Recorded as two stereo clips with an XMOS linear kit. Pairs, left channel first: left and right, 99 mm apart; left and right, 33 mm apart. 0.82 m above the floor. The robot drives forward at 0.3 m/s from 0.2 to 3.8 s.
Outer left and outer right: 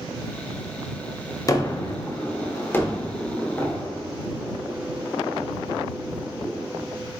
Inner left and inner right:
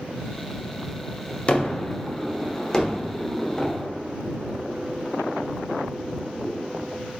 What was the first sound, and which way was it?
A gunshot, 35° left (ahead or behind).